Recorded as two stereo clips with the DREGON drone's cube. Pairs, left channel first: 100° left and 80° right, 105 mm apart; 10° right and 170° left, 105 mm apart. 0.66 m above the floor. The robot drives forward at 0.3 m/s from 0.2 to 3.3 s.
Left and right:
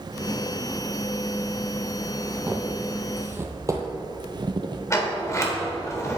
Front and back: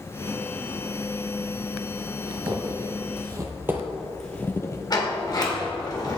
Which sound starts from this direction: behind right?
Footsteps, at 2.3 s.